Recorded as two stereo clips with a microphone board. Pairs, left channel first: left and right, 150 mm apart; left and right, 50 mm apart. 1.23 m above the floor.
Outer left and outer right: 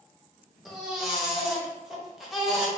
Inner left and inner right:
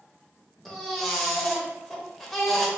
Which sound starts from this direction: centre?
A baby crying, at 0.7 s.